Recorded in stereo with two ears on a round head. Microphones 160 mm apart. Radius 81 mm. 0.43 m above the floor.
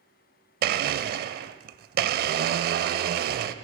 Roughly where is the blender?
Right.